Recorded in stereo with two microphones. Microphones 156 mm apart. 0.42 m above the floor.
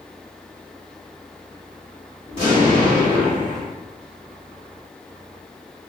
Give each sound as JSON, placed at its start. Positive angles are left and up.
{"t": 2.3, "sound": "an explosion", "side_deg": 35, "distance_m": 1.6}